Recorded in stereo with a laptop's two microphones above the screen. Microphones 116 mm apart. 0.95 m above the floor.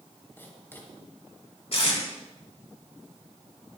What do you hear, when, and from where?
0.4 s writing: 20° left (ahead or behind), 3.5 m
1.7 s tape being pulled: 55° left (ahead or behind), 4 m